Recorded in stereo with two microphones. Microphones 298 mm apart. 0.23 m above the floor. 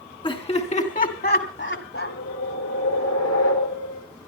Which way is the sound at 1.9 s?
60° left (ahead or behind).